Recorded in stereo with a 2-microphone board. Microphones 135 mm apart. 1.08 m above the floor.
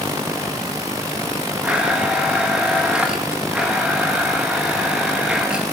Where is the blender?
10° right (ahead or behind), 1.7 m.